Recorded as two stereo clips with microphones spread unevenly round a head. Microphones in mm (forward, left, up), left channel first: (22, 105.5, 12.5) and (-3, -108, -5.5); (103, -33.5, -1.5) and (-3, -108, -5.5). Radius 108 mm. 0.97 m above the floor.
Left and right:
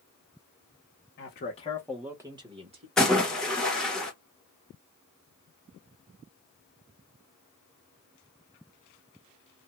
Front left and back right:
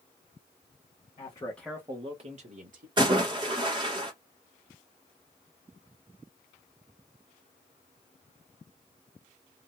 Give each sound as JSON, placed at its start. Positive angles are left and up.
{"t": 1.2, "sound": "a man speaking", "azimuth_deg": 65, "distance_m": 0.9}
{"t": 3.0, "sound": "a splash", "azimuth_deg": 175, "distance_m": 1.0}